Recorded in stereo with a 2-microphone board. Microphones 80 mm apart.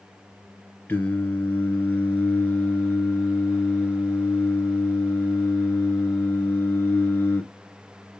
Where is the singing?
25° left (ahead or behind), 1.4 m.